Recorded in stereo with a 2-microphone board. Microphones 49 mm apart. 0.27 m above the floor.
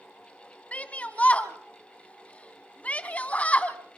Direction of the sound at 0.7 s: 30° left (ahead or behind).